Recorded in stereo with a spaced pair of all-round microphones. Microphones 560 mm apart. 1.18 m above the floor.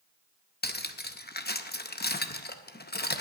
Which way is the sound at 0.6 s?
20° left (ahead or behind).